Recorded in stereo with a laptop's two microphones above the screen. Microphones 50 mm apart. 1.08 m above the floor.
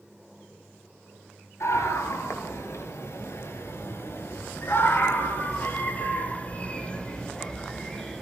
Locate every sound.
1.6 s a scream: 85° left, 7 m; by 8.2 s 10° left (ahead or behind), 6 m